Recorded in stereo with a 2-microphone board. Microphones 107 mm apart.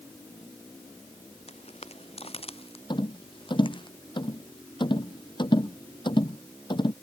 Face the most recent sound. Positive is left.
turn(degrees=50)  # may be behind; listen again after turning